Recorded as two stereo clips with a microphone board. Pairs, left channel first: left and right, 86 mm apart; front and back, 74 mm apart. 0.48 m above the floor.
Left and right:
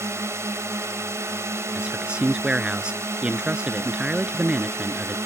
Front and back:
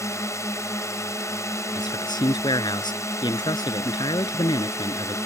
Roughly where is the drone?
Ahead right.